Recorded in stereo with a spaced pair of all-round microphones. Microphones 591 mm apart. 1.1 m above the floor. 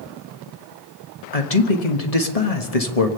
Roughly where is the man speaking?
Left.